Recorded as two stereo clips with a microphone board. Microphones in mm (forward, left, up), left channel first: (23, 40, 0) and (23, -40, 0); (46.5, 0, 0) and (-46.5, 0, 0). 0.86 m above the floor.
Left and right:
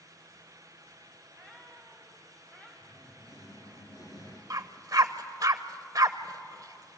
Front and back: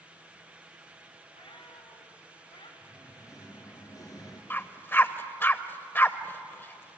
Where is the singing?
50° left, 3.5 m.